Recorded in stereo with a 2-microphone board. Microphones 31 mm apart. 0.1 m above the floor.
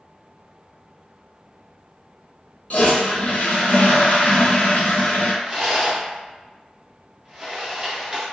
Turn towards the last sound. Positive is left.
turn(degrees=-25)  # may be behind; listen again after turning